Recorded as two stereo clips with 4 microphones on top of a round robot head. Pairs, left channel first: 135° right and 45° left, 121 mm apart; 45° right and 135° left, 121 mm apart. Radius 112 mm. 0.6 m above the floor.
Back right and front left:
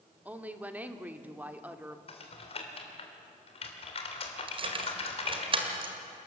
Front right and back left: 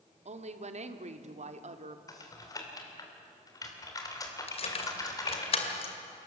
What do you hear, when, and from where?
0.2 s a woman speaking: 120° left, 1.5 m
2.1 s typing on a keyboard: 100° right, 3 m
4.5 s keys jangling: 5° right, 2 m